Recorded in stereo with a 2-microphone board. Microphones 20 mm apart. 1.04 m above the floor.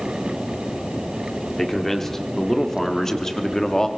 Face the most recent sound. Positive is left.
turn(degrees=25)  # may be behind; listen again after turning